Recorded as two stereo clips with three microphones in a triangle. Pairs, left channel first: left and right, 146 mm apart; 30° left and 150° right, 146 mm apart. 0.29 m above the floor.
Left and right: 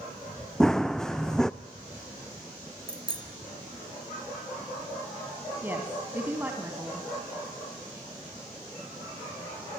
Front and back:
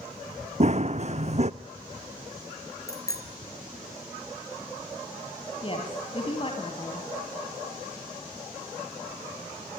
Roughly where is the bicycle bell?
Ahead right.